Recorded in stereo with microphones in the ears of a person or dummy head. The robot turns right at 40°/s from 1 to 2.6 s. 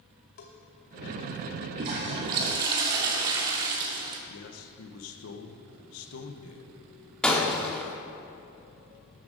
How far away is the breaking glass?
About 1.1 m.